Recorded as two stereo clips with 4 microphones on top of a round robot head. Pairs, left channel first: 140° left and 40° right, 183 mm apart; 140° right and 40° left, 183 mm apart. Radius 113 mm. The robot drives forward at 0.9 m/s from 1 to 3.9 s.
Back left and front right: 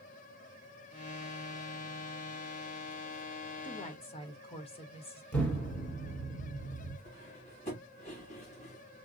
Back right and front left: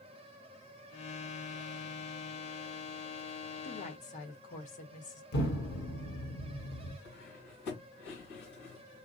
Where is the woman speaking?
170° right, 1.3 m.